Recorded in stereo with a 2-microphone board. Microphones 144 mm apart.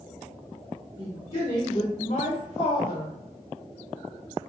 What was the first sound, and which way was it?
A woman speaking, 30° left (ahead or behind).